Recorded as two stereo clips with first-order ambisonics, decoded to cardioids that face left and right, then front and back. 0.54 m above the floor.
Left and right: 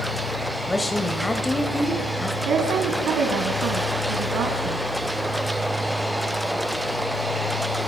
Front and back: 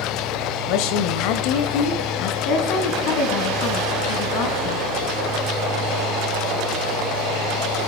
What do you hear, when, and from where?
0.7 s a woman speaking: 10° left, 2 m
2.5 s a woman speaking: 35° right, 4 m